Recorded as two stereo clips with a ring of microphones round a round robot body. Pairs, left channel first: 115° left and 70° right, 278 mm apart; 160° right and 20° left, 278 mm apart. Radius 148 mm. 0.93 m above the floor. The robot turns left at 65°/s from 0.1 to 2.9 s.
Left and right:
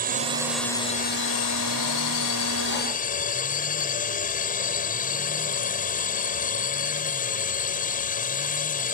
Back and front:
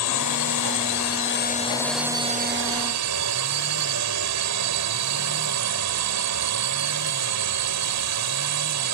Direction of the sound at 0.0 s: 125° right.